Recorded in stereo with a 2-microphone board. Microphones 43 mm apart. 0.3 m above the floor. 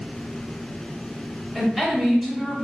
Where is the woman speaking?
10° right (ahead or behind), 1.2 m.